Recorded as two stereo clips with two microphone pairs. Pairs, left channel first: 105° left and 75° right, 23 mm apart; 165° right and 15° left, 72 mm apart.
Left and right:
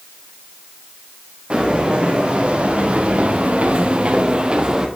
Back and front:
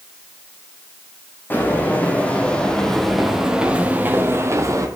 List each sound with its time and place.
1.5 s footsteps: 110° right, 2.5 m; by 4.9 s 20° right, 1.4 m